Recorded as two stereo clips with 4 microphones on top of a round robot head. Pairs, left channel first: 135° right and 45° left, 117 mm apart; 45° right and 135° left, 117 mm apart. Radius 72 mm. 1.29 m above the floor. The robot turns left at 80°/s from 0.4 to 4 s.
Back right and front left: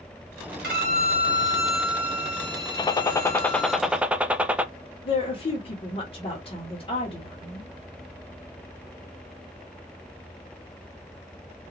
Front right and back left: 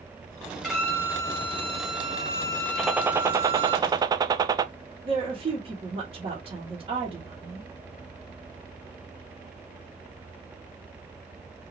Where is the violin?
45° left, 2 m; by 3.8 s 155° left, 2 m.